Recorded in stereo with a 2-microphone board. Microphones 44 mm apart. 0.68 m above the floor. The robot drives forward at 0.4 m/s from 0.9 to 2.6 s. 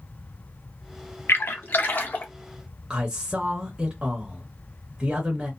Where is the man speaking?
20° right (ahead or behind), 0.8 m.